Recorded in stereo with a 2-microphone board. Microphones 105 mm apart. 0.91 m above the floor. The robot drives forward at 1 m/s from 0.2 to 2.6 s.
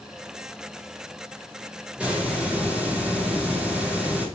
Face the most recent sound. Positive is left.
turn(degrees=-10)  # may be behind; listen again after turning